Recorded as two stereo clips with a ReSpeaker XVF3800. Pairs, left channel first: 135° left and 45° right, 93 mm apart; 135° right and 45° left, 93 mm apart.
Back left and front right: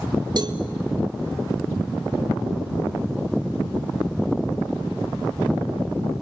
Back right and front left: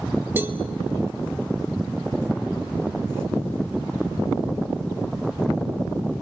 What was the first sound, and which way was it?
A cowbell, 20° right.